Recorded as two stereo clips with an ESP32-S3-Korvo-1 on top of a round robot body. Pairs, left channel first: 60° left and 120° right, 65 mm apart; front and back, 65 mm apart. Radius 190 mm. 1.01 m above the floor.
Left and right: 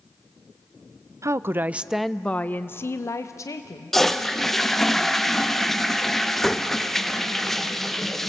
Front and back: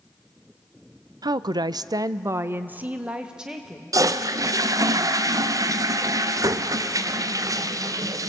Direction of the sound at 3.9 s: 145° left.